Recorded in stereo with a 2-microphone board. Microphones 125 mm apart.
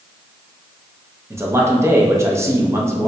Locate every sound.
1.3 s a man speaking: 20° right (ahead or behind), 0.6 m